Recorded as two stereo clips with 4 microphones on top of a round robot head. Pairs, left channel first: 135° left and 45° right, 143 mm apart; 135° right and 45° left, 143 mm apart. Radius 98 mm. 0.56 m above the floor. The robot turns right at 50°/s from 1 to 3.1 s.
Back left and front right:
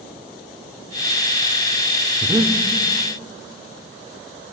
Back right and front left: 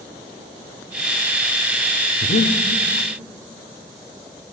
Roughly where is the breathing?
Behind right.